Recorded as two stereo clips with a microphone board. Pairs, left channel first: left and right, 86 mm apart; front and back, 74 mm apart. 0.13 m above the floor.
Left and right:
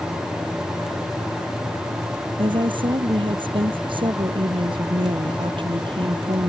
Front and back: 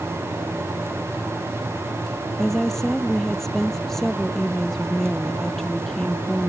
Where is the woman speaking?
85° right.